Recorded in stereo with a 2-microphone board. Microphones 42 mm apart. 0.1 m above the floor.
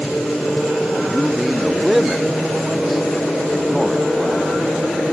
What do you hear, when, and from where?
1.1 s a man speaking: centre (ahead or behind)